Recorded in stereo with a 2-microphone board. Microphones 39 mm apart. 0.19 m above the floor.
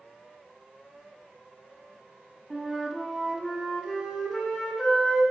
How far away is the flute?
About 1.5 m.